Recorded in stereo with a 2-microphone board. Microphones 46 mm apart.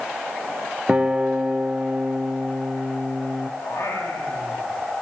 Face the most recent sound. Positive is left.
turn(degrees=70)  # may be behind; listen again after turning